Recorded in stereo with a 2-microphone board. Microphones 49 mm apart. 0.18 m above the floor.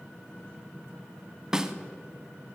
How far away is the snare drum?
About 0.5 m.